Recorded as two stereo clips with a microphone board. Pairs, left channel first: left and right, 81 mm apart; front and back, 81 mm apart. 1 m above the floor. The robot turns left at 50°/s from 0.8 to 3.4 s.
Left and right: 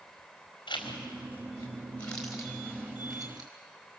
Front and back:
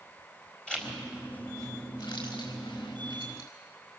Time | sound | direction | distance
0.7 | a zipper | 80° left | 4.5 m